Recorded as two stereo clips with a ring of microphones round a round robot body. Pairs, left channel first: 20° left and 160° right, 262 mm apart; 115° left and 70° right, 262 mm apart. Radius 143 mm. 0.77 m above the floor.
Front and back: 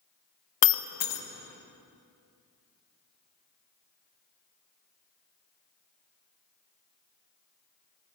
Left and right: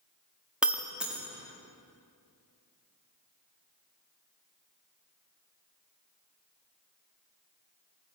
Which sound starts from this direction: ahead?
Breaking glass, at 0.6 s.